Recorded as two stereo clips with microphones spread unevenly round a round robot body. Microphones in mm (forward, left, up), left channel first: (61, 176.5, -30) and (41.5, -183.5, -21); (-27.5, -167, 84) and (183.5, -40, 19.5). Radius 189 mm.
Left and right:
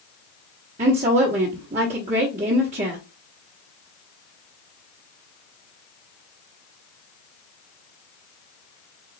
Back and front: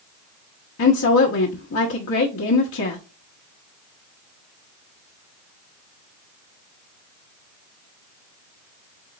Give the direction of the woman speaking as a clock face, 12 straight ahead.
5 o'clock.